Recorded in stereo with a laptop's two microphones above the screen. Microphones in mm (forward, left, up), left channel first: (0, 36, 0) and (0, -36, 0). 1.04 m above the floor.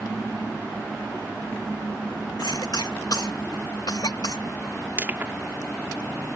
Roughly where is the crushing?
Right.